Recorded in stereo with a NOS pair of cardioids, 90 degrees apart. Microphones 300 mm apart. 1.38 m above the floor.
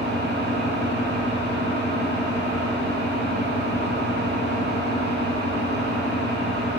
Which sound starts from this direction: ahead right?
An engine running, at 0.0 s.